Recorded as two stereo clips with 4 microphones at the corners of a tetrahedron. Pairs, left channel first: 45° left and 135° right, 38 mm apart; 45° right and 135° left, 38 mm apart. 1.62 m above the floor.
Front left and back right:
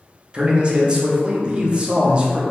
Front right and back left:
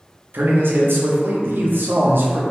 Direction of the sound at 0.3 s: 160° left.